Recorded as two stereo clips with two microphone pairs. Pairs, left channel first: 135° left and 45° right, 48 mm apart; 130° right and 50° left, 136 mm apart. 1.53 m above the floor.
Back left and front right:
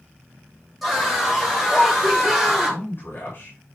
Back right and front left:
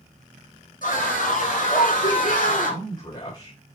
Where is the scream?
140° right, 6.5 m.